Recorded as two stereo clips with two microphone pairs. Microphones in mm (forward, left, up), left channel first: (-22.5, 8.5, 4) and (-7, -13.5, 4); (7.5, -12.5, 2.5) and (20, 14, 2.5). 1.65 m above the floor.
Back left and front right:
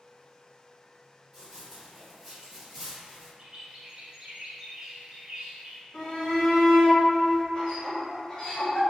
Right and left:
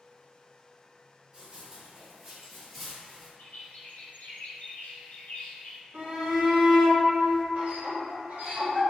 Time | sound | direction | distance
1.3 | running footsteps | 40° left | 2.0 m
3.4 | a bird | 120° right | 0.6 m
5.9 | a shout | 60° left | 1.5 m